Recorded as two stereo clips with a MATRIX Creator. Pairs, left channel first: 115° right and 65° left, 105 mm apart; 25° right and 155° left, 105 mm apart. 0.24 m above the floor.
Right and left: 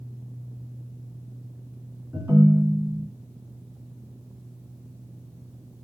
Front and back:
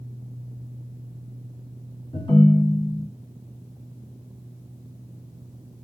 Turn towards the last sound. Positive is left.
turn(degrees=5)